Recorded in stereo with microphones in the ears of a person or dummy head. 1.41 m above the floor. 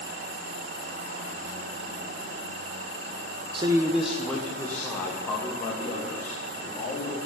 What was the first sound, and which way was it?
A man speaking, 30° right (ahead or behind).